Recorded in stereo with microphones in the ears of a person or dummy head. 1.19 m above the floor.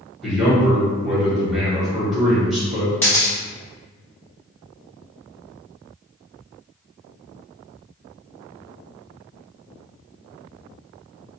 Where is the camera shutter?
10° left (ahead or behind), 0.5 m.